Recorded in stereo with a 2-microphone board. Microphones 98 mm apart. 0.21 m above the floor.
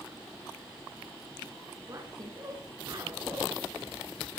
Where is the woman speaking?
40° right (ahead or behind), 2.5 m.